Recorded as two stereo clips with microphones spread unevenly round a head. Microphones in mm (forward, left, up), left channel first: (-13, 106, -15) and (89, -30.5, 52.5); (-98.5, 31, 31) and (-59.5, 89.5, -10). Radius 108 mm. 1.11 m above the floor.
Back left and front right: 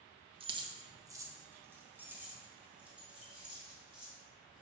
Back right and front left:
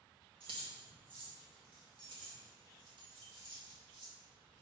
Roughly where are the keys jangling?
Ahead.